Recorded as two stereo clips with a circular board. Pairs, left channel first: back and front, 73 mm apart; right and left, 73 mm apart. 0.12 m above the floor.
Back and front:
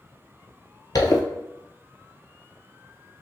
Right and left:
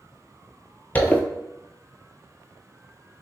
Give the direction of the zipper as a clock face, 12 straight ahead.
5 o'clock.